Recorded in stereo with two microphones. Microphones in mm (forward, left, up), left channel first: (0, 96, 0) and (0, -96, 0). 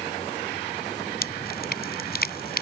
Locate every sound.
1.2 s dripping: 55° left (ahead or behind)